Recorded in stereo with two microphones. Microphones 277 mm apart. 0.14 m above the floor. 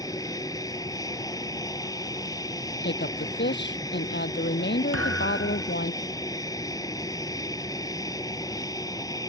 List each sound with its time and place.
0.0 s an aircraft: 15° left (ahead or behind)
2.8 s a woman speaking: 40° left (ahead or behind)
4.9 s a thud: 55° right (ahead or behind)